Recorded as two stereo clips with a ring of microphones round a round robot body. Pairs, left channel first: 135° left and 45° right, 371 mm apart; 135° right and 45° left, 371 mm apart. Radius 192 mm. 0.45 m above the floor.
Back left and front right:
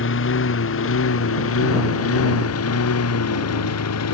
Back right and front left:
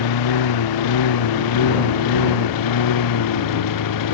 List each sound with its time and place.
0.0 s a lawn mower: 165° right; by 4.1 s 175° right